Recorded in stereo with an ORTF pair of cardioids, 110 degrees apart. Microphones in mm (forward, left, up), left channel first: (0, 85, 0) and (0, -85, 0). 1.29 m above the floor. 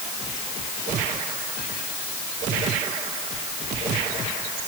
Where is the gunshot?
I don't hear a gunshot.